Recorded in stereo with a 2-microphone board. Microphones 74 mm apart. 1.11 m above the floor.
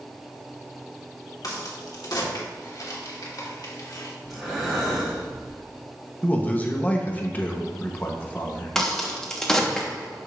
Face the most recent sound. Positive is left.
turn(degrees=10)  # may be behind; listen again after turning